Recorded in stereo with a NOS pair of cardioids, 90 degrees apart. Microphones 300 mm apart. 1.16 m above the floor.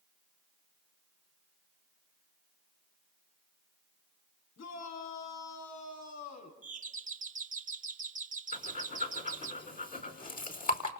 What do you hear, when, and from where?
4.6 s a shout: 65° left, 9 m; by 6.5 s 60° left, 7.5 m
6.6 s a doorbell: 25° right, 2.5 m
8.5 s breathing: 30° left, 5 m